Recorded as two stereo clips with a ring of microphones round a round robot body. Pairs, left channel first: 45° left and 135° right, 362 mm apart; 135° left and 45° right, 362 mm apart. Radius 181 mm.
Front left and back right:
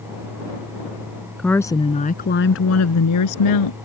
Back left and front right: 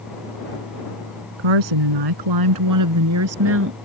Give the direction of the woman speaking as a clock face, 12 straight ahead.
1 o'clock.